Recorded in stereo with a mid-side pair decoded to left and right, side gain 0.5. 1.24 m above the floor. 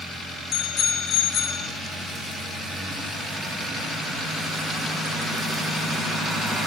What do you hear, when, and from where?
0.5 s a bicycle bell: 50° left, 3 m